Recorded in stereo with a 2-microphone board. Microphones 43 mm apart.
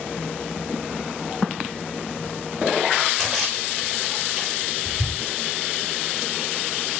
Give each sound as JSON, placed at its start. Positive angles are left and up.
{"t": 3.2, "sound": "a splash", "side_deg": 0, "distance_m": 6.0}